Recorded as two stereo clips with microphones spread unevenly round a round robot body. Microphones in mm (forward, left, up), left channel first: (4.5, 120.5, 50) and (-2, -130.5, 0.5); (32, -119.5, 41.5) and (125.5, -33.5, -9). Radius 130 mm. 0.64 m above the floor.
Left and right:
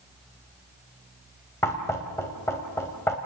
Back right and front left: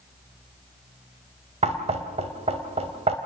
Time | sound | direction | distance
1.6 | knocking | 5° left | 2.5 m